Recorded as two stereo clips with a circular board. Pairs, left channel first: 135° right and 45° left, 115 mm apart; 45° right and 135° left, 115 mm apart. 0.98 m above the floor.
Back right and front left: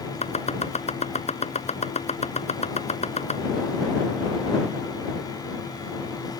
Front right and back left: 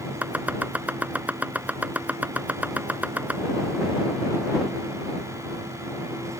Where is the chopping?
150° right.